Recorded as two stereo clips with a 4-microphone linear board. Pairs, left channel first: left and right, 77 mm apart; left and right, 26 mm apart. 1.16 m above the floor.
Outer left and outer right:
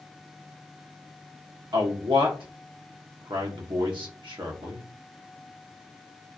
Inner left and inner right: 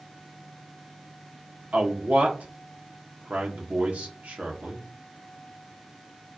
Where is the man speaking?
75° right (ahead or behind), 1.5 m.